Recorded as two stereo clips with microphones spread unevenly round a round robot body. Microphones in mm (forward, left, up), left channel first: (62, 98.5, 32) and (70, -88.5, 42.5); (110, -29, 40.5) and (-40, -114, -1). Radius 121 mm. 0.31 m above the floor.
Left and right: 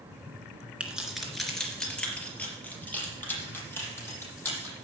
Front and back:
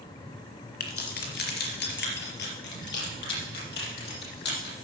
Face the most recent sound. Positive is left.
turn(degrees=15)